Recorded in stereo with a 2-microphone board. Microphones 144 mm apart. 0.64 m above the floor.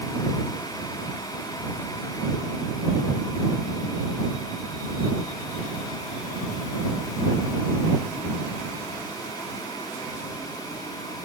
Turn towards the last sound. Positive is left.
No sound to turn to.